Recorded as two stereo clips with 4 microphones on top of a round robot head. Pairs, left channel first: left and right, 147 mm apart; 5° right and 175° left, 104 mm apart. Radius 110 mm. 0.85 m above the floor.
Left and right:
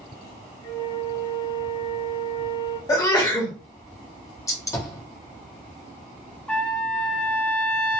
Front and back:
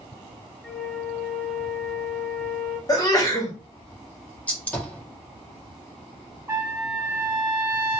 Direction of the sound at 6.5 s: 160° left.